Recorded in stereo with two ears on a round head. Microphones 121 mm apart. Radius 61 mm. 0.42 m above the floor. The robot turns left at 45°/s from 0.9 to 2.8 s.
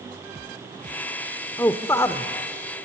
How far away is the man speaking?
About 0.8 m.